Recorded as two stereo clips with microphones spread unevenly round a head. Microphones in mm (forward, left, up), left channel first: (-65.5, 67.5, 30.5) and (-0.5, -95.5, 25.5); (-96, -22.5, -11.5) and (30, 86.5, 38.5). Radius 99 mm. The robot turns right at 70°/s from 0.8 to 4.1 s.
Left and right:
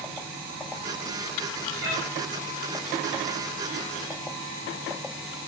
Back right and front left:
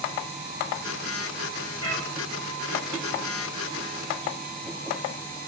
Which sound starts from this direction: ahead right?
A cat meowing, at 1.8 s.